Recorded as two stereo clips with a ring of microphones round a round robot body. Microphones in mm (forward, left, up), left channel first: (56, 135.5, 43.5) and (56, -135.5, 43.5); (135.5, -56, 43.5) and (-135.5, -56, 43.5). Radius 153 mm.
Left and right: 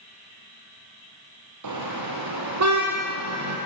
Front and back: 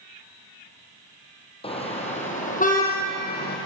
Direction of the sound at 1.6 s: 70° right.